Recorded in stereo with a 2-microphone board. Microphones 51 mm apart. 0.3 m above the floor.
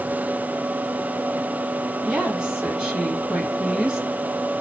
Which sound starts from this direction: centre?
A woman speaking, at 2.0 s.